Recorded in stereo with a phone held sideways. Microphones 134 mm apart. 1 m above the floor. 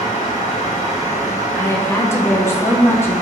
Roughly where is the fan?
Left.